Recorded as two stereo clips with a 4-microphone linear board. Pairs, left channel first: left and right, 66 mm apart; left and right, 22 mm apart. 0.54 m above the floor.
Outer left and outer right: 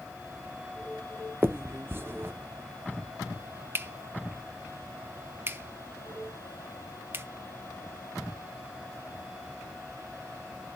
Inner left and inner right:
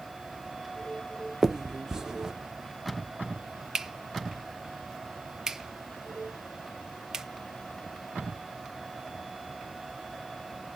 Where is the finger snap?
35° right (ahead or behind), 0.5 m.